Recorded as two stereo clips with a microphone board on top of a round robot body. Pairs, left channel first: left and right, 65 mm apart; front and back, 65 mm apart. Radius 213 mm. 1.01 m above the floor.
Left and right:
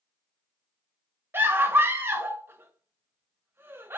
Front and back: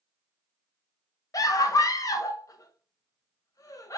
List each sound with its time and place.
1.3 s a scream: 35° right, 0.8 m